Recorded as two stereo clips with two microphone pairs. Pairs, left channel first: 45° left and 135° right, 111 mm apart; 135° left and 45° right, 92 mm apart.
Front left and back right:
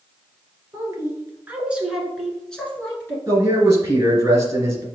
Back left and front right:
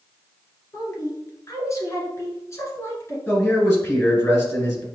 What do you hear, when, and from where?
0.7 s a woman speaking: 175° left, 1.5 m; by 3.2 s 100° left, 1.3 m
3.3 s a man speaking: straight behind, 2 m